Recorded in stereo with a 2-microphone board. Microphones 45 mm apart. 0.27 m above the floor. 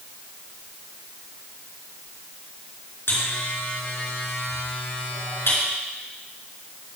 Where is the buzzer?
65° left (ahead or behind), 4 m.